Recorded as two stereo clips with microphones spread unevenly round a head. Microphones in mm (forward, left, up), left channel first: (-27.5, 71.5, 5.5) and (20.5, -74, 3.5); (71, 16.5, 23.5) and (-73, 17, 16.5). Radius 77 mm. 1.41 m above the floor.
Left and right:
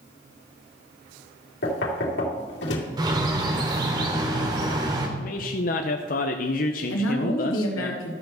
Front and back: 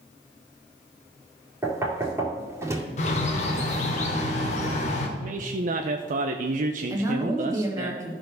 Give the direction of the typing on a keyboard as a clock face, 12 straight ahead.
I don't hear typing on a keyboard.